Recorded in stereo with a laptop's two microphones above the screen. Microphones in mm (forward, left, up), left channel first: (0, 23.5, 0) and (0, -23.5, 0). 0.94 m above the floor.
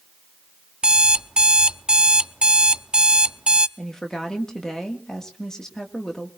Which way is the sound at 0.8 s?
20° right (ahead or behind).